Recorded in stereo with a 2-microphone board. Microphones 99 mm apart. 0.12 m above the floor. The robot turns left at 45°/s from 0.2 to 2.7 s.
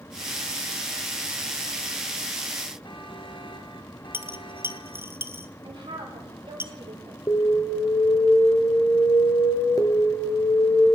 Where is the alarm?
35° left (ahead or behind), 1.9 m.